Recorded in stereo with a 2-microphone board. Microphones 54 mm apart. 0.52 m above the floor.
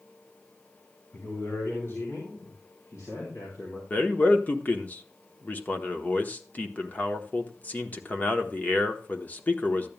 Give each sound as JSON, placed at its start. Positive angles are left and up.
{"t": 1.1, "sound": "a man speaking", "side_deg": 45, "distance_m": 4.0}
{"t": 3.9, "sound": "a man speaking", "side_deg": 30, "distance_m": 1.0}